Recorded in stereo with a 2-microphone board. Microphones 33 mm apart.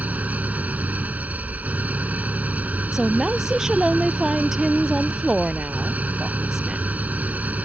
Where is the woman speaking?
15° right (ahead or behind).